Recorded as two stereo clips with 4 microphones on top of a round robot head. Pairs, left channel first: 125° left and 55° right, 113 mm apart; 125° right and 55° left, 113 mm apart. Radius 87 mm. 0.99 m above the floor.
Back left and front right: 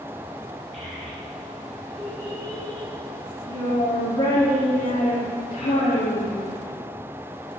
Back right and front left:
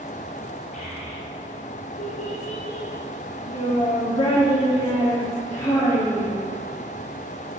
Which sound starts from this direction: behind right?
A child speaking, at 0.7 s.